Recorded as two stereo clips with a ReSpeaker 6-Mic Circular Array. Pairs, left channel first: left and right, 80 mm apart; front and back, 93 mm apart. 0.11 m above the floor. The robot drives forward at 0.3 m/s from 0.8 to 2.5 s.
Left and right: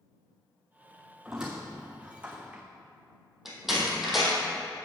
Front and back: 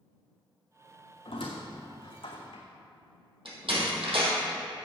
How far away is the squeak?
About 1.7 m.